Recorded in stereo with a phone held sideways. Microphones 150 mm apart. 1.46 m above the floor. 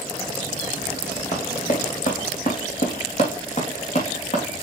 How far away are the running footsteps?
About 3 m.